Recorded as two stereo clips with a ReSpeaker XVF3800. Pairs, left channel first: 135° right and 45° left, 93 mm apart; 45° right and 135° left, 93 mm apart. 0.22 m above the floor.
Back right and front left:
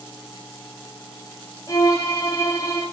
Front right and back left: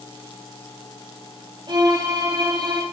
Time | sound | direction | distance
1.7 | a violin | 175° left | 7 m